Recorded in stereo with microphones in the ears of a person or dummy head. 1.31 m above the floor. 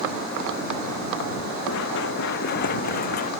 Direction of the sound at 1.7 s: 70° left (ahead or behind).